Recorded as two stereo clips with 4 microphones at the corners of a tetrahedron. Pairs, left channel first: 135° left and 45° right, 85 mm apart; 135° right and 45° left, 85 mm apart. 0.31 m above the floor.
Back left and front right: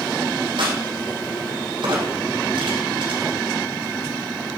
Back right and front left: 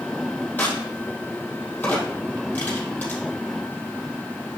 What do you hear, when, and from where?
0.6 s a crack: 65° right, 3.5 m